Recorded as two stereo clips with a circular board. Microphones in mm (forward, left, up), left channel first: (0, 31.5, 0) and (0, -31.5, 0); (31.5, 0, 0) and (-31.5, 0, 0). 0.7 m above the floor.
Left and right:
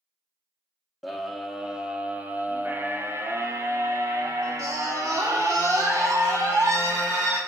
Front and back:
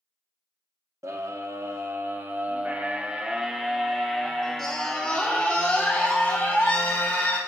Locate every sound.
1.0 s a scream: straight behind, 1.3 m; by 7.4 s 65° right, 2.5 m